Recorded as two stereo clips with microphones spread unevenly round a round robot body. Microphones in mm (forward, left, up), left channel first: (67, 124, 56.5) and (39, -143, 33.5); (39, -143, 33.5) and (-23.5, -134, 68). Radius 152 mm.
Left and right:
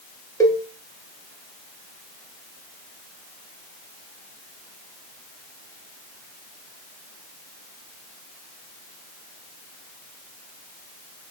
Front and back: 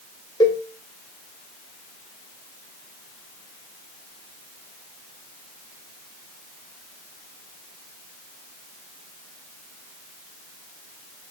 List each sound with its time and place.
0.4 s a cowbell: 5° left, 1.3 m